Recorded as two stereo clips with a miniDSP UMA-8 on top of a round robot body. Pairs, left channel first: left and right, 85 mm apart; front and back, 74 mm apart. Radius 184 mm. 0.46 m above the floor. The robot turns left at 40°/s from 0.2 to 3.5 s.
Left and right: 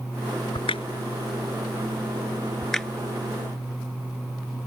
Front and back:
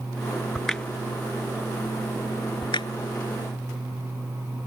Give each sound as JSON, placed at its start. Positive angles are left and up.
{"t": 0.6, "sound": "a crack", "azimuth_deg": 90}